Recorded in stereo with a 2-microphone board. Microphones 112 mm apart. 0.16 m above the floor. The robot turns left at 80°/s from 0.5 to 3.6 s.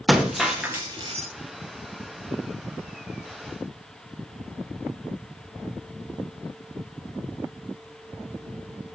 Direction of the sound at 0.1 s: Straight ahead.